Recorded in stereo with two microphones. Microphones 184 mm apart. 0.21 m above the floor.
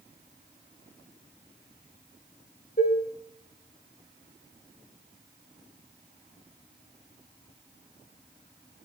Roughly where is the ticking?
No ticking in this recording.